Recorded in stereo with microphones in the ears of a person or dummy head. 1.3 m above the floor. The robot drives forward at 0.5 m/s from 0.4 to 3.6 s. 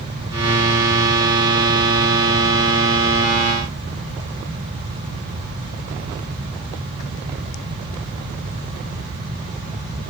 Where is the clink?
I don't hear a clink.